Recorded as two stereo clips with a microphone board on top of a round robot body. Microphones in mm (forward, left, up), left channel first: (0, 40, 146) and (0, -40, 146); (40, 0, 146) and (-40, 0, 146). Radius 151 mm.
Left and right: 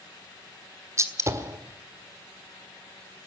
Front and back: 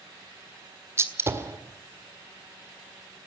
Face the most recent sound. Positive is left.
turn(degrees=-130)